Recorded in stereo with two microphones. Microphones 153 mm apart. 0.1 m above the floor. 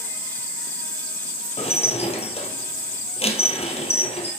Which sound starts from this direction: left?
Dishes clattering, at 1.6 s.